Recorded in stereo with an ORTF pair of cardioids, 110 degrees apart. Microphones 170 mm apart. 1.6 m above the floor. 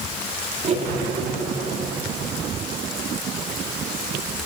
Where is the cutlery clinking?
40° right, 2.5 m.